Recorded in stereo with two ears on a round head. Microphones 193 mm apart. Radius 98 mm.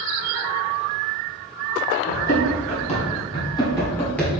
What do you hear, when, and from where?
2.1 s running footsteps: 45° left (ahead or behind), 1.8 m; by 4.3 s 5° left (ahead or behind), 1.3 m